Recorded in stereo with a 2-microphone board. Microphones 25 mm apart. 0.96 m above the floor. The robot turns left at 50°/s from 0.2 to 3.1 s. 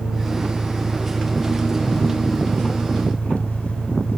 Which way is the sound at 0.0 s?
145° right.